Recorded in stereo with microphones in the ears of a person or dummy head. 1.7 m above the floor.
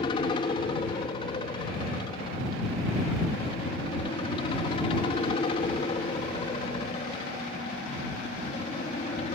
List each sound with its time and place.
0.0 s a helicopter: 25° left (ahead or behind); by 9.3 s 35° left (ahead or behind)